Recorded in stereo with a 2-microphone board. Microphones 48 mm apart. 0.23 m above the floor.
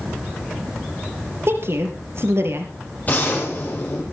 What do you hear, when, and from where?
1.5 s a woman speaking: 60° right (ahead or behind), 4 m
3.1 s a gunshot: 35° left (ahead or behind), 9 m